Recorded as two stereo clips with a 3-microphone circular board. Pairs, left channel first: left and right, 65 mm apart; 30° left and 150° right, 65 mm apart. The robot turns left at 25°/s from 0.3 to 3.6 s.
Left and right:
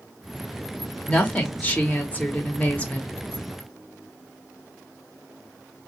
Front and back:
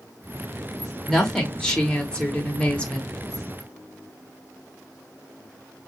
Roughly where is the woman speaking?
Left.